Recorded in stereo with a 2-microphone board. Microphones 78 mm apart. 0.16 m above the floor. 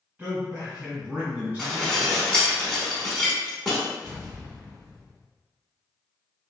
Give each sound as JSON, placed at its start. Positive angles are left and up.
{"t": 0.2, "sound": "a man speaking", "side_deg": -20, "distance_m": 1.3}
{"t": 1.6, "sound": "dishes clattering", "side_deg": 10, "distance_m": 0.7}
{"t": 4.0, "sound": "an explosion", "side_deg": 15, "distance_m": 1.3}